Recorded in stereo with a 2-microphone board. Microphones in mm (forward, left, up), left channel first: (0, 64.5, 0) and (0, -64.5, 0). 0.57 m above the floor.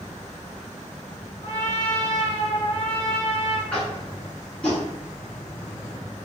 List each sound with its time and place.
1.4 s a trumpet: 50° left (ahead or behind), 0.8 m
3.7 s tapping: 5° left (ahead or behind), 1.0 m